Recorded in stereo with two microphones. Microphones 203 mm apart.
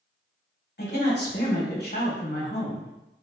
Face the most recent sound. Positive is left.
turn(degrees=50)  # may be behind; listen again after turning